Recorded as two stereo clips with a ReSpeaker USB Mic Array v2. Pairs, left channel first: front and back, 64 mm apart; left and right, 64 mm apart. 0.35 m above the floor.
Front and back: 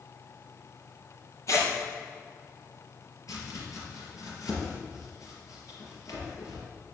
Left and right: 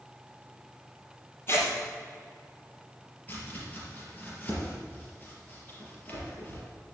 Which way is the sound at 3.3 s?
30° left.